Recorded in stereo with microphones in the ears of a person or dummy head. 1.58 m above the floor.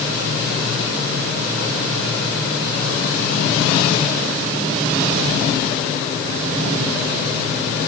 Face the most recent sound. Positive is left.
No sound to turn to.